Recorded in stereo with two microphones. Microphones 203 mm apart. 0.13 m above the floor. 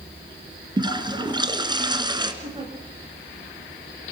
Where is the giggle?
30° right (ahead or behind), 7.5 m.